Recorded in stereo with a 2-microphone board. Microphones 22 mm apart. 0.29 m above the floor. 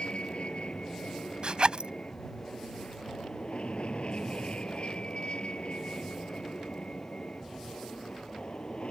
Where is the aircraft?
55° left (ahead or behind).